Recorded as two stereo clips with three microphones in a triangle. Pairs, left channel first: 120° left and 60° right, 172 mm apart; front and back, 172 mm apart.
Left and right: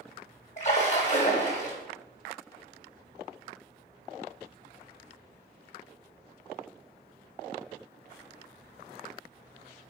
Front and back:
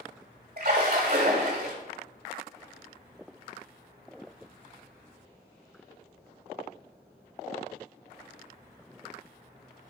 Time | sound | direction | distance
0.6 | a splash | 160° left | 1.0 m